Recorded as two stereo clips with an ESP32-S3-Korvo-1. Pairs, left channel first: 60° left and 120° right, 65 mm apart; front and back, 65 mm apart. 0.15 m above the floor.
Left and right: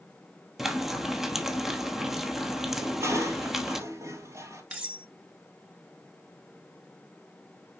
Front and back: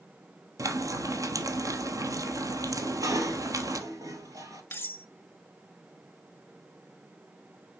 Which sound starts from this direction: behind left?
Frying, at 0.6 s.